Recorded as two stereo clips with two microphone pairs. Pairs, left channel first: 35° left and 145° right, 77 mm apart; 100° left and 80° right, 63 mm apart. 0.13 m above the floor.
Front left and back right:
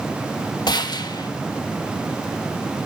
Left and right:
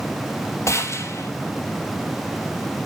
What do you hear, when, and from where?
0.7 s a gunshot: 60° left, 0.7 m